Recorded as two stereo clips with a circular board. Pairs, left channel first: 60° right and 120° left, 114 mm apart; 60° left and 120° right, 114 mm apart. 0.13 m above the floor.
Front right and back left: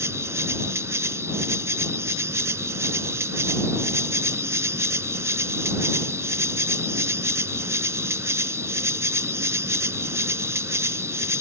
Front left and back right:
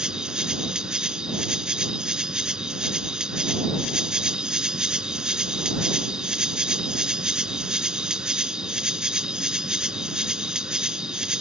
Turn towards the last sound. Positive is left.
turn(degrees=165)